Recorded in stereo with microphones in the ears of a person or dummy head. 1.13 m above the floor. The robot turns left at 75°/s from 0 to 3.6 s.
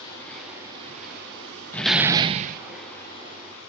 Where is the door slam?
10° left, 0.9 m; by 2.6 s 55° right, 0.9 m.